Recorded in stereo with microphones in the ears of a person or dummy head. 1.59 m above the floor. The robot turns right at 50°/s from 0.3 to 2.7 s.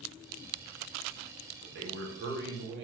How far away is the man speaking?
About 0.9 m.